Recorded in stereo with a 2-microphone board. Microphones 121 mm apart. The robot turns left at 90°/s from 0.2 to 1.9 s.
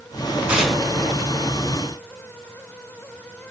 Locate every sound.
0.5 s tearing paper: 10° right (ahead or behind), 1.9 m; by 0.8 s 5° left (ahead or behind), 1.9 m